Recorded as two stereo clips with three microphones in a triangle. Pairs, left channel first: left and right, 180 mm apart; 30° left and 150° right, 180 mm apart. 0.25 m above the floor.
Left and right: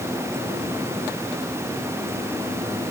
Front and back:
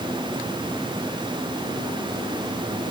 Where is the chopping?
No chopping in this recording.